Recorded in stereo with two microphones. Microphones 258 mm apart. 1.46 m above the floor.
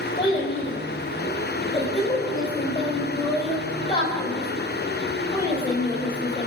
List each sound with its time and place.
0.2 s a child speaking: 20° left (ahead or behind), 3.5 m